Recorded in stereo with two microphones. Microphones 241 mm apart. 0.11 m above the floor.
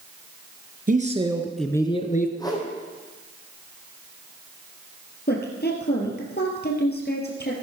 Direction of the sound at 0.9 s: 35° right (ahead or behind).